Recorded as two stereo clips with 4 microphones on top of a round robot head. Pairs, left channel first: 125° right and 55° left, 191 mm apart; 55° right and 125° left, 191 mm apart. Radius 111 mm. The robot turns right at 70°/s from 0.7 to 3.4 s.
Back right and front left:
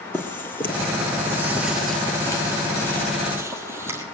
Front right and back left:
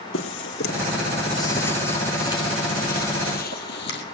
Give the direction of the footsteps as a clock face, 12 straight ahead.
2 o'clock.